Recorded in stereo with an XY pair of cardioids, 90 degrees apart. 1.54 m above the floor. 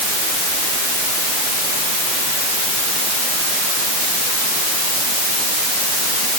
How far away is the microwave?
I don't hear a microwave.